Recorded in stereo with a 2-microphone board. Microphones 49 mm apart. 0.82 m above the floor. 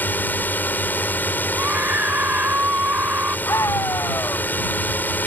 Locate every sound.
0.0 s a drone: 40° left (ahead or behind)
1.5 s a scream: 40° right (ahead or behind)
3.5 s a scream: 80° left